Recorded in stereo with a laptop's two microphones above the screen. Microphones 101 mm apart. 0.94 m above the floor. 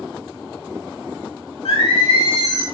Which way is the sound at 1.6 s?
80° left.